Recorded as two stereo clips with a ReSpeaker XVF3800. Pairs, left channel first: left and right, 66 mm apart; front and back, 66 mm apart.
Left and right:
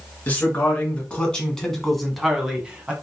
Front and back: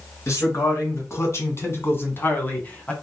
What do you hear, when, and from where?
0.3 s a man speaking: 30° left, 2 m; by 2.9 s 40° right, 1.4 m